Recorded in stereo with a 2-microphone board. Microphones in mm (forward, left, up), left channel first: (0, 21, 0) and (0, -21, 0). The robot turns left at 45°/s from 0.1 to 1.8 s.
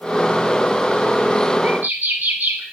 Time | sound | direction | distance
1.6 | a bird | 50° right (ahead or behind) | 1.1 m